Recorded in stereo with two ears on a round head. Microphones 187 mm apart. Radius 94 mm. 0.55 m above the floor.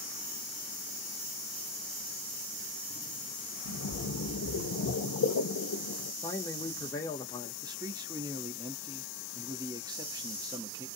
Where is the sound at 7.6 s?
20° right (ahead or behind), 0.7 m.